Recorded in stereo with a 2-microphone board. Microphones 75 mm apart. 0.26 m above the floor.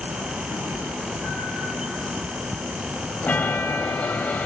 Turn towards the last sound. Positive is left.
turn(degrees=20)  # may be behind; listen again after turning